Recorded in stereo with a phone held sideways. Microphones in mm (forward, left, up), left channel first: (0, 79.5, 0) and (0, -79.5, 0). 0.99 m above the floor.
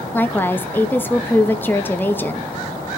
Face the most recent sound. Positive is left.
turn(degrees=10)  # may be behind; listen again after turning